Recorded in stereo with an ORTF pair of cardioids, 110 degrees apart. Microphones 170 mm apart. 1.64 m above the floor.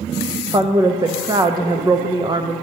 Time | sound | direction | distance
0.5 | a woman speaking | 25° right | 0.5 m